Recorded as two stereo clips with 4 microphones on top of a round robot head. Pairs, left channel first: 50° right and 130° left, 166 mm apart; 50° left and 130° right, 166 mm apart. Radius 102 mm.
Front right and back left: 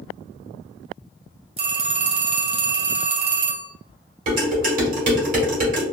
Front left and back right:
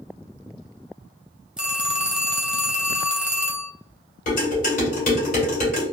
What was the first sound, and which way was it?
A phone ringing, 150° left.